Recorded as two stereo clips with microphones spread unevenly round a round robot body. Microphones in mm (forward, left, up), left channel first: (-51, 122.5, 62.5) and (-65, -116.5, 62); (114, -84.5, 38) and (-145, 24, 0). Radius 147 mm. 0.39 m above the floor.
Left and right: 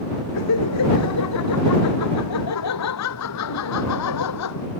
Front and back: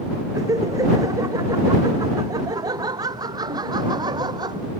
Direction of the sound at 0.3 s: 80° left.